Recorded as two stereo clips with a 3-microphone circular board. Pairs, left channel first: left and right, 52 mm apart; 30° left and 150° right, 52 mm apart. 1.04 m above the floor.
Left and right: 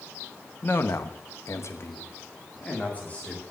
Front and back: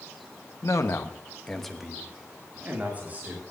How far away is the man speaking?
About 1.2 m.